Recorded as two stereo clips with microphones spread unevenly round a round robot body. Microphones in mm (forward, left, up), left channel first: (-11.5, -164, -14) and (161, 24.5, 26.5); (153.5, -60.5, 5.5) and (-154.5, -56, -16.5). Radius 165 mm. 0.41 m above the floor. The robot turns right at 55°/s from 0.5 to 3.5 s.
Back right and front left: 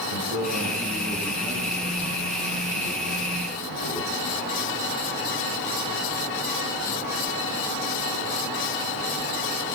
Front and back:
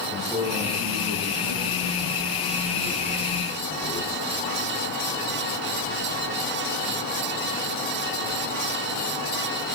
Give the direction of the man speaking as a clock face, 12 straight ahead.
9 o'clock.